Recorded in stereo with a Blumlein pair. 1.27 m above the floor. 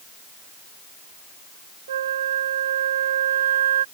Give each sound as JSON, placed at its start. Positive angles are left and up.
{"t": 1.9, "sound": "a flute", "azimuth_deg": -60}